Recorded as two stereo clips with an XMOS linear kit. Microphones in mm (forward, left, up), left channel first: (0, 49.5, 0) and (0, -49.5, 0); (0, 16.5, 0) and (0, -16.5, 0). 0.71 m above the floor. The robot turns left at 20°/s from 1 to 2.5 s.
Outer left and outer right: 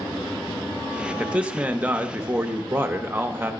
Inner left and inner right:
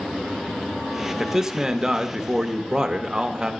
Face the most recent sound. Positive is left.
turn(degrees=-20)  # may be behind; listen again after turning